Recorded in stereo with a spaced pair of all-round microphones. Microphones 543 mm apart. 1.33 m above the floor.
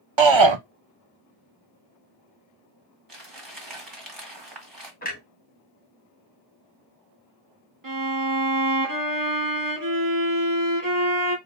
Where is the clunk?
15° left (ahead or behind), 1.6 m.